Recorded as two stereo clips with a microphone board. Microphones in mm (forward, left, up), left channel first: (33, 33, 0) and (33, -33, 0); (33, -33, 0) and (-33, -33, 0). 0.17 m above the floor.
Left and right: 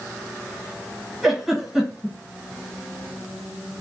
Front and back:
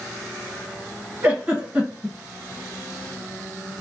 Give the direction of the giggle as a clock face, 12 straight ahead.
5 o'clock.